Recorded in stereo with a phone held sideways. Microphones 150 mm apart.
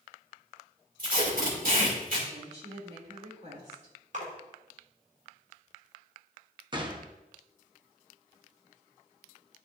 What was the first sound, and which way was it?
Tape being pulled, 65° right (ahead or behind).